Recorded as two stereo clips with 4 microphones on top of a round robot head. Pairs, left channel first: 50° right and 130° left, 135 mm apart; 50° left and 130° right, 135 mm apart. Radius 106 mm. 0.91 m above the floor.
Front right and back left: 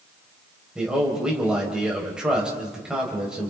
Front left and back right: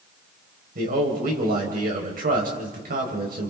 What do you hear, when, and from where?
0.8 s a man speaking: 145° right, 4 m